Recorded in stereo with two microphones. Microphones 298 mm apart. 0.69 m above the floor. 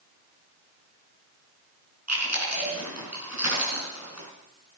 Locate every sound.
2.1 s chewing: 60° right (ahead or behind), 4.5 m